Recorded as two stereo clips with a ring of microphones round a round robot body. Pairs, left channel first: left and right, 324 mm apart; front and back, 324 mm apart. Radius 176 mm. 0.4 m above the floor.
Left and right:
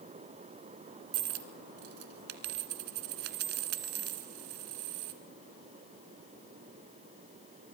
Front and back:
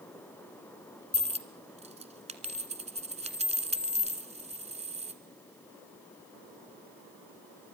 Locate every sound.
1.1 s a dropped coin: 110° right, 1.9 m